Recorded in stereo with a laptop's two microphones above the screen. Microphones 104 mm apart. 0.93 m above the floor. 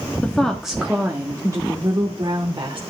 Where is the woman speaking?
15° left (ahead or behind), 1.5 m; by 2.8 s 50° right (ahead or behind), 3 m.